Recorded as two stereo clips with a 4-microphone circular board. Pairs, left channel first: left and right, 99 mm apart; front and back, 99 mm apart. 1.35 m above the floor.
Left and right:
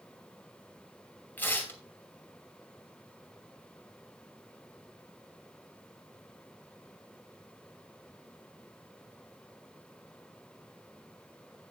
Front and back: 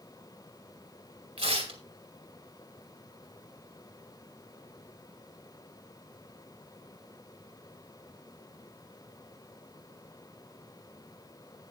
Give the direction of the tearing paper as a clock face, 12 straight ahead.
7 o'clock.